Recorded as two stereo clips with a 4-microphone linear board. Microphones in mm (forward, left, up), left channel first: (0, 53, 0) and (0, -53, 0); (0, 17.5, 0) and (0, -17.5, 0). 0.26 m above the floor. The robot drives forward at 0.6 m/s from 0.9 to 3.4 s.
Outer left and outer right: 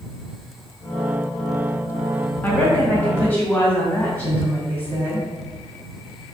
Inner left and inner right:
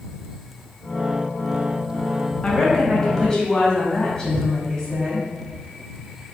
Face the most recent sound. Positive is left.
turn(degrees=15)  # may be behind; listen again after turning